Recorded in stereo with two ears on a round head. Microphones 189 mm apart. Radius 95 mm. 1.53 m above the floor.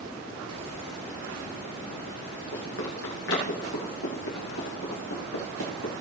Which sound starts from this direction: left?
Running footsteps, at 2.5 s.